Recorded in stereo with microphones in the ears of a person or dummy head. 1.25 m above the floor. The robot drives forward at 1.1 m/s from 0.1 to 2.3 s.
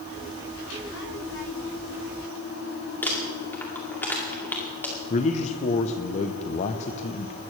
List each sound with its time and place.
3.0 s crumpling: 15° left (ahead or behind), 2.5 m
5.1 s a man speaking: 35° left (ahead or behind), 0.7 m